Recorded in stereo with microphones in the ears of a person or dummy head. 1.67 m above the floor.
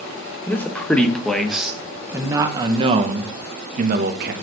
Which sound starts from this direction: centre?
A man speaking, at 0.5 s.